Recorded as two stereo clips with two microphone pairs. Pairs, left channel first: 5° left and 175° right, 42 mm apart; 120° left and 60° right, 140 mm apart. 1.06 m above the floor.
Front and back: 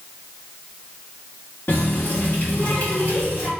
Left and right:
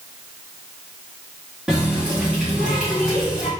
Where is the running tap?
25° left, 1.4 m.